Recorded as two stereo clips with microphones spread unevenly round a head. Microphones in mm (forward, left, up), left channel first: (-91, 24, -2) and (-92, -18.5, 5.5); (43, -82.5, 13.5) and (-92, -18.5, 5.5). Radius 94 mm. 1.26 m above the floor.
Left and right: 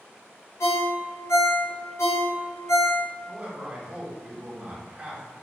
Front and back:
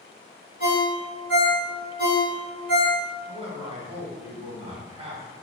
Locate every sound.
0.6 s a ringtone: 105° left, 1.2 m
3.3 s a man speaking: 155° right, 1.2 m